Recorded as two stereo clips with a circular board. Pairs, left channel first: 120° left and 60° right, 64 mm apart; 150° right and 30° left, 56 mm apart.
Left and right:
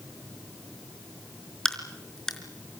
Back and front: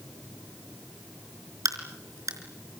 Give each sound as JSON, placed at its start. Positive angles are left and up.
{"t": 1.6, "sound": "a crack", "azimuth_deg": 40, "distance_m": 4.0}